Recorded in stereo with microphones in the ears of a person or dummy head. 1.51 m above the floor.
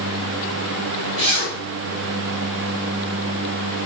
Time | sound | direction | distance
1.2 | a zipper | 35° right (ahead or behind) | 4.5 m